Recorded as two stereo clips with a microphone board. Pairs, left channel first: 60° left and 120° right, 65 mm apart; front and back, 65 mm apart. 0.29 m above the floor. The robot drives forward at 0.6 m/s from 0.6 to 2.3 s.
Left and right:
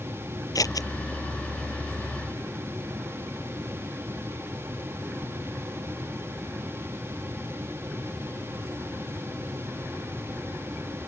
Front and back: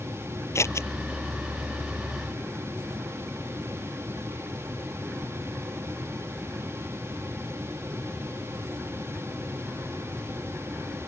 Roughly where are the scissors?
Ahead left.